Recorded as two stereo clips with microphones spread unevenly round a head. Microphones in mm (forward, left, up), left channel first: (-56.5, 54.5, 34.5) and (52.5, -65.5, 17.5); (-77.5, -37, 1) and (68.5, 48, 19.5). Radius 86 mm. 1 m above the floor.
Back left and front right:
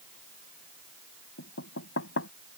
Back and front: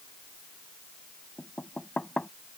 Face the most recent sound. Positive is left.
turn(degrees=125)